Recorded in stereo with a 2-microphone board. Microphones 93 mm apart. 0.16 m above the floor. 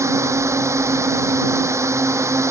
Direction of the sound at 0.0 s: 30° right (ahead or behind).